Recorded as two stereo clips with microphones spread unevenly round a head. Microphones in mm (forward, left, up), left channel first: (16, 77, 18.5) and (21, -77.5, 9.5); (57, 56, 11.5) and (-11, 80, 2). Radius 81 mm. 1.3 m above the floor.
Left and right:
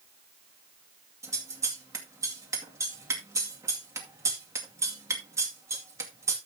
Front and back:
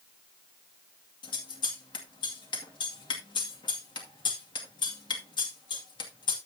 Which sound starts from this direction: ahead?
Scissors, at 1.2 s.